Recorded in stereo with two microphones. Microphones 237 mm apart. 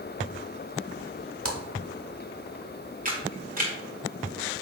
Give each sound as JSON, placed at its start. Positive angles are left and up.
{"t": 1.4, "sound": "a splash", "side_deg": -65, "distance_m": 1.1}
{"t": 3.0, "sound": "a camera shutter", "side_deg": -35, "distance_m": 1.8}